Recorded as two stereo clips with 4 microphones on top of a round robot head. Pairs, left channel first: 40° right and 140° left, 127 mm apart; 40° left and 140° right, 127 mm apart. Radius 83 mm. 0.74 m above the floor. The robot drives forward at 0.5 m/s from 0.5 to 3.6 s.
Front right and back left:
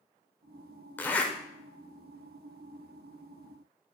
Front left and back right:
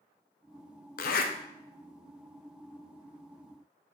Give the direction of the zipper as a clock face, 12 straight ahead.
11 o'clock.